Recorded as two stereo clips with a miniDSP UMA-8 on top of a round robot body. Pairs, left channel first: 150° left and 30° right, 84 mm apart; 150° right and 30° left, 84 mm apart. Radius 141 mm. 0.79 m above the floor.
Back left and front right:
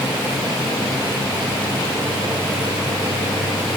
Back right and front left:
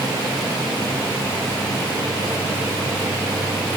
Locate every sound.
Only background noise.